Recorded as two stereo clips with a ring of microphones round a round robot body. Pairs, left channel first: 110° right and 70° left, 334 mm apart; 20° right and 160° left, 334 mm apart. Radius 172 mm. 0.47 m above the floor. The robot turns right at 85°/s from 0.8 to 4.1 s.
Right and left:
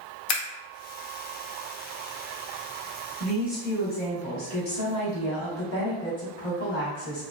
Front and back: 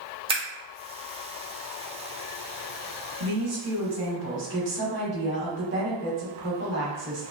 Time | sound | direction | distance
0.3 | scissors | 130° right | 0.9 m
3.2 | a woman speaking | 130° left | 1.3 m